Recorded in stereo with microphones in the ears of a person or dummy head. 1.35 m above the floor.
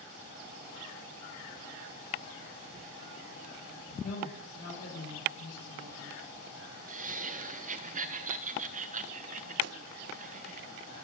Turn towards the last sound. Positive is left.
turn(degrees=-70)  # may be behind; listen again after turning